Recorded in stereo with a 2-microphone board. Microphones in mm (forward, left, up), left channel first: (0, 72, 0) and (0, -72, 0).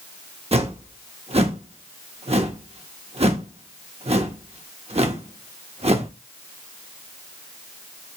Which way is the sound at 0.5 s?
45° right (ahead or behind).